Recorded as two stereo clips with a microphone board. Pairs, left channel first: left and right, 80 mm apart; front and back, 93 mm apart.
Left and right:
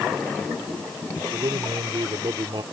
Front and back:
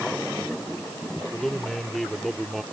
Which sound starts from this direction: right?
A man speaking, at 1.3 s.